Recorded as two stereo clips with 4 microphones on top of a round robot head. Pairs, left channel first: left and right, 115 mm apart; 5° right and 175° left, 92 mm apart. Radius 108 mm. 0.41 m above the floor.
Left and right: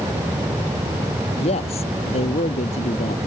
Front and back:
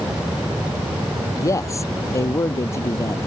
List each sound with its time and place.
1.4 s a man speaking: 50° left; by 3.3 s 55° left